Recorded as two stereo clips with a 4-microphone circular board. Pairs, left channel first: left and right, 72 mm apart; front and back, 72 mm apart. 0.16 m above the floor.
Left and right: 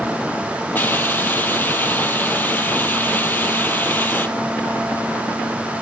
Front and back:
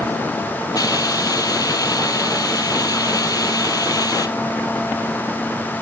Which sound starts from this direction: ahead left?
A hiss, at 0.8 s.